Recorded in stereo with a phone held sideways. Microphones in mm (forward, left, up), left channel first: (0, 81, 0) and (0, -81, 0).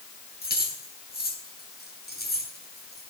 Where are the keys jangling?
75° left (ahead or behind), 7.5 m.